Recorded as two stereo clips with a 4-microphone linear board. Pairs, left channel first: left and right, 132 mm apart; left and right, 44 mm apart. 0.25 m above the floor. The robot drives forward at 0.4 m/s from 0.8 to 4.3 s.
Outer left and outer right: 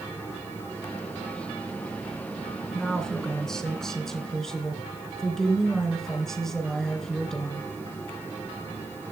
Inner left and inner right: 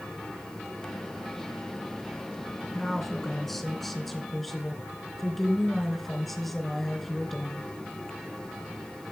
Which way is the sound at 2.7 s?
5° left (ahead or behind).